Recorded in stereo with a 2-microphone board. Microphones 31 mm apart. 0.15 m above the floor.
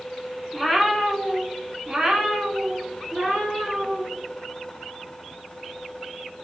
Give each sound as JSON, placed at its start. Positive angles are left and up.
{"t": 0.5, "sound": "a cat meowing", "side_deg": -5, "distance_m": 0.7}